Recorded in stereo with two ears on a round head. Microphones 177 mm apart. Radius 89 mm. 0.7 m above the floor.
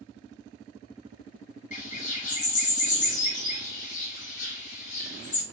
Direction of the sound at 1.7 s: 40° left (ahead or behind).